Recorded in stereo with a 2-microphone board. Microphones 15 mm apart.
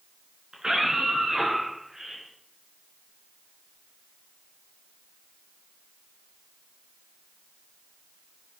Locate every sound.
0.5 s a scream: 55° right (ahead or behind), 5 m; by 2.2 s 40° right (ahead or behind), 6 m